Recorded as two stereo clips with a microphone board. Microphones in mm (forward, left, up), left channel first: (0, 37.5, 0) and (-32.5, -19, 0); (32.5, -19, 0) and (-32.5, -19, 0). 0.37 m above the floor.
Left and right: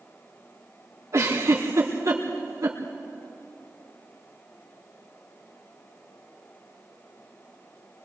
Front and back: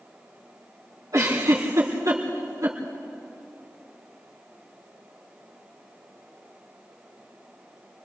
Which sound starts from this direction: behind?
A giggle, at 1.1 s.